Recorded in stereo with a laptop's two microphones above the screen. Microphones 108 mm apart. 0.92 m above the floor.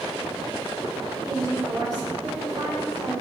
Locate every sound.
1.2 s a woman speaking: 40° right (ahead or behind), 2.5 m